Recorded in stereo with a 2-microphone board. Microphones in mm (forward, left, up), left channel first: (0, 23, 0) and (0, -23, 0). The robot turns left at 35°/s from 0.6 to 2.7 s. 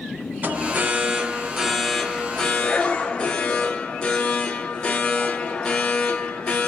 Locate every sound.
0.4 s an alarm: 135° right, 0.9 m; by 6.7 s 155° left, 0.9 m